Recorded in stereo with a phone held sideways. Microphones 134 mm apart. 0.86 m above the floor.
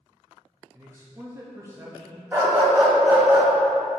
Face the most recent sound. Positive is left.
turn(degrees=-15)  # may be behind; listen again after turning